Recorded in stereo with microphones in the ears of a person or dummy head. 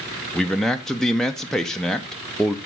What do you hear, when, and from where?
0.3 s a man speaking: centre (ahead or behind), 0.5 m